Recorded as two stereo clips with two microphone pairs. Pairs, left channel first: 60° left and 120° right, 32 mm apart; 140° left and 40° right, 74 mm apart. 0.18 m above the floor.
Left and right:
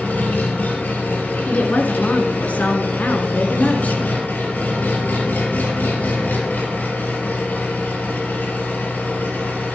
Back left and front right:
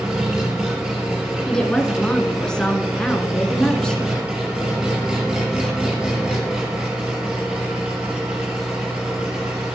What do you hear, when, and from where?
0.0 s an engine running: 35° left, 3.5 m
1.5 s a woman speaking: 65° left, 1.8 m